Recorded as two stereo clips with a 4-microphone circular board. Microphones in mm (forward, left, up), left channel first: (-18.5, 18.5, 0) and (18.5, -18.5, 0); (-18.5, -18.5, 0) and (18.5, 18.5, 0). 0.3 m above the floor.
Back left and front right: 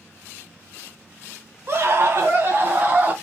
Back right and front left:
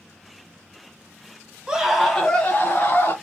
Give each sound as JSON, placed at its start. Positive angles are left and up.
{"t": 1.7, "sound": "a scream", "azimuth_deg": -25, "distance_m": 1.6}